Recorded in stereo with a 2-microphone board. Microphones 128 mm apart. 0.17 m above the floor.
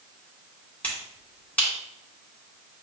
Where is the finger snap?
10° left (ahead or behind), 1.5 m.